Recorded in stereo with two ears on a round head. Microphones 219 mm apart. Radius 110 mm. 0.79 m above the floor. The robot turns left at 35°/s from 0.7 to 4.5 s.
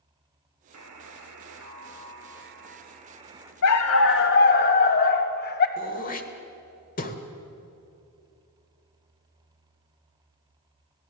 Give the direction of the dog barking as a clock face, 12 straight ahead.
10 o'clock.